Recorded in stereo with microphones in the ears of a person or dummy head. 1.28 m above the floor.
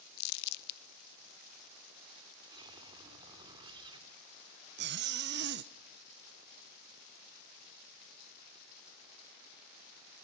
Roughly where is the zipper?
Right.